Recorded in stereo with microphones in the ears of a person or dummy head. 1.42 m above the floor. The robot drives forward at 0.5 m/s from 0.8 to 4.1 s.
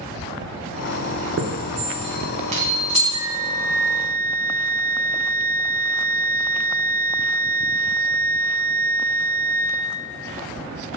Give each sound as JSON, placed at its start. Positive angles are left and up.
{"t": 1.4, "sound": "a chime", "side_deg": -65, "distance_m": 0.7}
{"t": 3.1, "sound": "a flute", "side_deg": 50, "distance_m": 1.7}